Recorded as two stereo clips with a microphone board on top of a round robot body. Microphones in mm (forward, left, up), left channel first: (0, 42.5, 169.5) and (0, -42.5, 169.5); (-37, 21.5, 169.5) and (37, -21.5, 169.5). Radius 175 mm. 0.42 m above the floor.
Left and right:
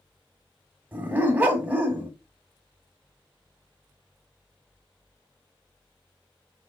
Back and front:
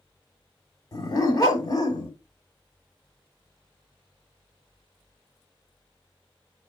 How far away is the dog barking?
About 1.3 m.